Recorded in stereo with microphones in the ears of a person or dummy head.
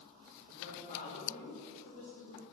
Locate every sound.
0.5 s a woman speaking: 45° left (ahead or behind), 2 m